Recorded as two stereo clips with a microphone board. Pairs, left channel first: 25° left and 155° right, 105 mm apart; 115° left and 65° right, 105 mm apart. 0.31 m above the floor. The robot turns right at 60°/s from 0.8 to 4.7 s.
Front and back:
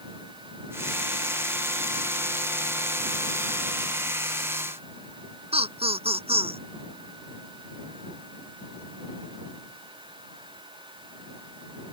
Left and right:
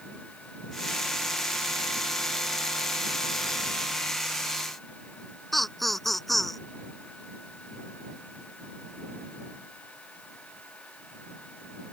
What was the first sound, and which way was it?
Laughter, 160° right.